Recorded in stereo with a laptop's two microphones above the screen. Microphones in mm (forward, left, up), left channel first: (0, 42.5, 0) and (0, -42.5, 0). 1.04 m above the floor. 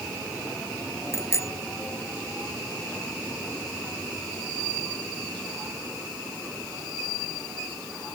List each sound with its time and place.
1.1 s a bicycle bell: 35° left (ahead or behind)